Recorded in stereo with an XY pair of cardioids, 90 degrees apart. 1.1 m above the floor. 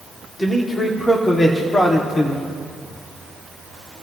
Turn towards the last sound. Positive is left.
turn(degrees=40)